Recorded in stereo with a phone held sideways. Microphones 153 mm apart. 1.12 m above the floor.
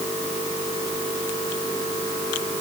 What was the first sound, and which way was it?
Only background noise.